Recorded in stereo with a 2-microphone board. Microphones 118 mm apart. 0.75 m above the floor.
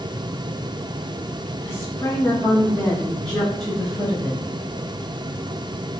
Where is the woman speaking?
25° left (ahead or behind), 1.0 m; by 4.4 s 5° right (ahead or behind), 1.1 m.